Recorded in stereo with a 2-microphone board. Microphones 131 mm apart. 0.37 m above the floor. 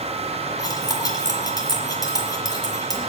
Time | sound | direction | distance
0.6 | cutlery clinking | 30° left (ahead or behind) | 2.5 m